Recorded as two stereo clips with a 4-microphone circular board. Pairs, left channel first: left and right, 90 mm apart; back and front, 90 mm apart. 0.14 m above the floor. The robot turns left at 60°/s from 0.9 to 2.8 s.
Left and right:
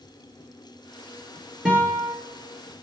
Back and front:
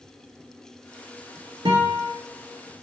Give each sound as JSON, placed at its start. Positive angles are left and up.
{"t": 1.6, "sound": "a guitar", "azimuth_deg": -10, "distance_m": 1.3}